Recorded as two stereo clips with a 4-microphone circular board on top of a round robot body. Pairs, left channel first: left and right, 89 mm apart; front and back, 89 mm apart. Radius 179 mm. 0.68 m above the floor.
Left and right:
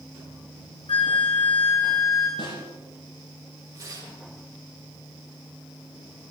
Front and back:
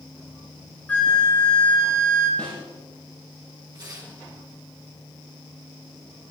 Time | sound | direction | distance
0.9 | a flute | 75° left | 3.5 m
2.4 | a snare drum | 75° left | 9.5 m
3.7 | tearing paper | 135° right | 7.5 m